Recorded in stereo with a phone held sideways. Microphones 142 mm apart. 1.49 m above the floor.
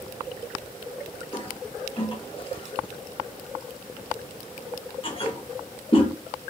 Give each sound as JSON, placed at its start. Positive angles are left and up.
{"t": 1.3, "sound": "a toilet flushing", "side_deg": 35, "distance_m": 0.9}